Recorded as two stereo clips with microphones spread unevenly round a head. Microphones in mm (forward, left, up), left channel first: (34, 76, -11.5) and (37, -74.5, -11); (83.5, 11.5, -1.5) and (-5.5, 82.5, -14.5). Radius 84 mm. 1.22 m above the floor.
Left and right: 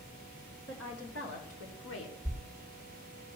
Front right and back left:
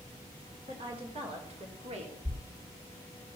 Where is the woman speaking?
105° left, 4 m; by 2.1 s 120° left, 3 m.